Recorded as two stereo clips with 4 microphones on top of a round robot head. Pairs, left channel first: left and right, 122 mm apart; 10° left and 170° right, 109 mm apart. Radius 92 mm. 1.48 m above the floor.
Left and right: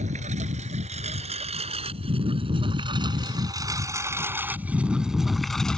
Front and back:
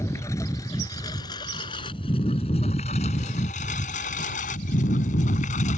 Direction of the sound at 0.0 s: 65° right.